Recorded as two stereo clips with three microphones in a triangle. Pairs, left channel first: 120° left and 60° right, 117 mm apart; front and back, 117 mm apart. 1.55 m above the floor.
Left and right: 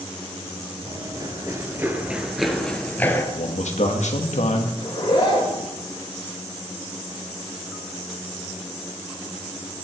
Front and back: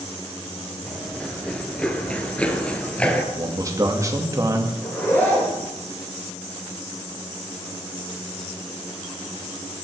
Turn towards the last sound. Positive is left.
turn(degrees=75)